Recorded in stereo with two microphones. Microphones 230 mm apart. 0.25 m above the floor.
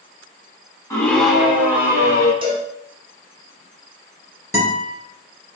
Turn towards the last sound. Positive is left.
turn(degrees=-15)  # may be behind; listen again after turning